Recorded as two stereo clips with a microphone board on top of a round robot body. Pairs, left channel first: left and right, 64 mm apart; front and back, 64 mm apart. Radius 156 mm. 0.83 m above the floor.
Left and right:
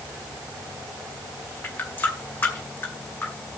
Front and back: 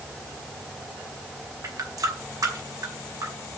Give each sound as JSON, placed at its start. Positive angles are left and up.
{"t": 1.6, "sound": "a running tap", "azimuth_deg": 150, "distance_m": 2.5}